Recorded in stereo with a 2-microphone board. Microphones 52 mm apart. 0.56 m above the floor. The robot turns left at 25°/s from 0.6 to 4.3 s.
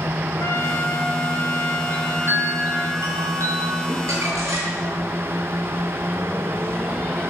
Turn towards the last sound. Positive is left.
turn(degrees=-85)